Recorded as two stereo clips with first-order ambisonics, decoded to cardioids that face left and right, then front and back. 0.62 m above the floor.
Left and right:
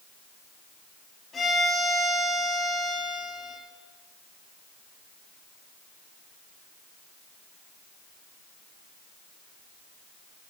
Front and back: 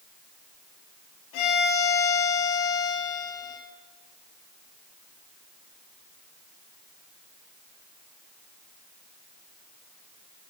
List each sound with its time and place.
1.3 s a violin: 20° left, 4.5 m